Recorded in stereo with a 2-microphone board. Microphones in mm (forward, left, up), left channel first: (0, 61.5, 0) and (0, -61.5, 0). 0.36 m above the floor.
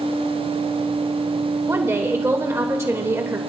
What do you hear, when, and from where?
1.7 s a woman speaking: 20° right (ahead or behind), 1.2 m